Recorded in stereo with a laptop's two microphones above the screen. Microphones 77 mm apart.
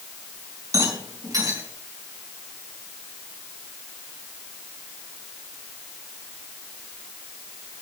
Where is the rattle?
50° right (ahead or behind), 3.5 m.